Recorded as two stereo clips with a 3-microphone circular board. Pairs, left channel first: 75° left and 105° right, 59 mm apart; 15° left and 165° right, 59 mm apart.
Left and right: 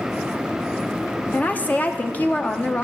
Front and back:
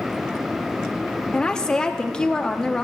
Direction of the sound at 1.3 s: 75° left.